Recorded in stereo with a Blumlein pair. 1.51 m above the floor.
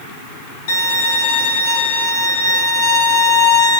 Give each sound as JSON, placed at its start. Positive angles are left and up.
{"t": 0.7, "sound": "a violin", "azimuth_deg": 50, "distance_m": 1.0}